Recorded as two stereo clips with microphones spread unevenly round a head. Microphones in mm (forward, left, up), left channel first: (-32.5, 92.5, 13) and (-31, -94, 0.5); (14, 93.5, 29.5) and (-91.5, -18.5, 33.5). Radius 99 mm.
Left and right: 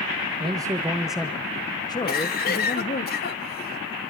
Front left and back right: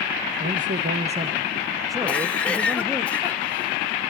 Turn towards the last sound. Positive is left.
turn(degrees=130)